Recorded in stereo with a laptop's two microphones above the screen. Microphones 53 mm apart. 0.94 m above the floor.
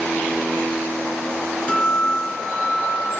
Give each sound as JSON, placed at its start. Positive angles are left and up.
{"t": 1.7, "sound": "a guitar", "side_deg": 20, "distance_m": 3.0}